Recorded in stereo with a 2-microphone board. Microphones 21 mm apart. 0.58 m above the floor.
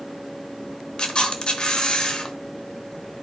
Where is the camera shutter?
40° left (ahead or behind), 1.0 m.